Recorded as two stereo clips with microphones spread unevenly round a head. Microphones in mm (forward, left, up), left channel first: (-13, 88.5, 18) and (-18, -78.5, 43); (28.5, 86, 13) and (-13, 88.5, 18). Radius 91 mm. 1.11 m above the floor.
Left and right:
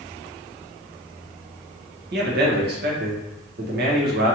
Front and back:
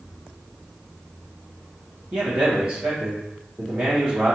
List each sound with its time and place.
2.1 s a man speaking: 115° right, 1.1 m